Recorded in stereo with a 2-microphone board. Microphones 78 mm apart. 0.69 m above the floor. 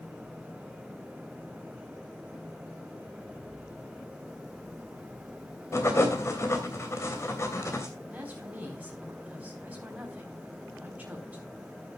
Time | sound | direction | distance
5.7 | writing | 35° left (ahead or behind) | 2.5 m
8.1 | a woman speaking | 20° right (ahead or behind) | 4 m